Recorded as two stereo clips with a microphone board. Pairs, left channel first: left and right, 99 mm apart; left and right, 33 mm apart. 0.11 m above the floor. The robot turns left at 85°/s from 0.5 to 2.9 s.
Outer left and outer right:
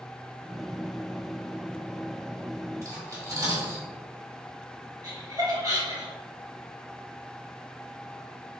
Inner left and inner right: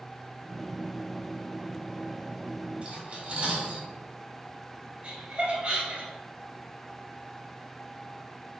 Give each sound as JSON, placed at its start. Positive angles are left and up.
{"t": 2.8, "sound": "cutlery clinking", "side_deg": -30, "distance_m": 1.5}
{"t": 5.0, "sound": "laughter", "side_deg": -40, "distance_m": 1.9}